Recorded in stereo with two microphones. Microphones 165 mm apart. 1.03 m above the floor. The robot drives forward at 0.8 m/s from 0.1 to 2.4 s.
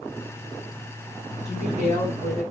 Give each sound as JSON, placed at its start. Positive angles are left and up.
{"t": 1.4, "sound": "a woman speaking", "side_deg": -50, "distance_m": 6.5}